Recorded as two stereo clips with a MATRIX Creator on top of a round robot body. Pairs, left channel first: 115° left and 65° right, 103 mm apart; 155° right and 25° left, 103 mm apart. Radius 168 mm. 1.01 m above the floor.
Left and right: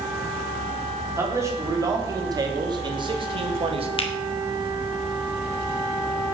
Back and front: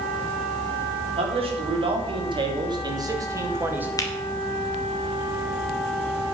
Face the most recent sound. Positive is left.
turn(degrees=145)